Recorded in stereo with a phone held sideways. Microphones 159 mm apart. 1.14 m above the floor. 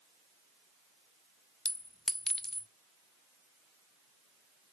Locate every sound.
1.6 s a clink: 5° left (ahead or behind), 0.6 m